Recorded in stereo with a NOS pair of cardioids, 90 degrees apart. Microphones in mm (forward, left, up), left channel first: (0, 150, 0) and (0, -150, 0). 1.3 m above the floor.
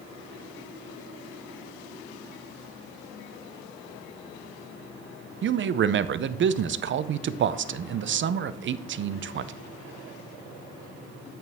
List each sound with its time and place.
5.4 s a man speaking: 40° right, 0.6 m